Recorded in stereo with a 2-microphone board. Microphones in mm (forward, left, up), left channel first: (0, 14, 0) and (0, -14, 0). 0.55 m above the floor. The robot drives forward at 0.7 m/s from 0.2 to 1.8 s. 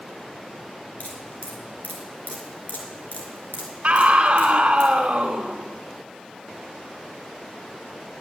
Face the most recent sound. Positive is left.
turn(degrees=-45)  # may be behind; listen again after turning